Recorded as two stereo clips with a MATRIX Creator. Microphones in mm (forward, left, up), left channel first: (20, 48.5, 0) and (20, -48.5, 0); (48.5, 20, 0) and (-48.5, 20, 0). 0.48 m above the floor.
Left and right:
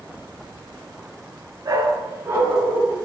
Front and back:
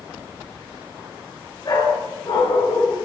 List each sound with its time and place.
1.6 s a dog barking: 35° right, 3 m; by 3.0 s 20° right, 2.5 m